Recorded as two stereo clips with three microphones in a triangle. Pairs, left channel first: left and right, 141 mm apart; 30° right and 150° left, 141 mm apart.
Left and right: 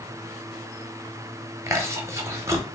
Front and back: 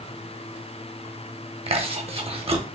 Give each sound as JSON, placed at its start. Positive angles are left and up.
{"t": 1.7, "sound": "chewing", "azimuth_deg": -160, "distance_m": 0.8}